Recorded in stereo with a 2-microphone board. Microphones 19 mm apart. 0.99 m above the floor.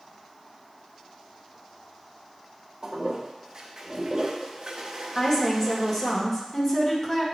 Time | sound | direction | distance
2.8 | a toilet flushing | 45° right (ahead or behind) | 0.9 m
5.2 | a woman speaking | 25° left (ahead or behind) | 1.6 m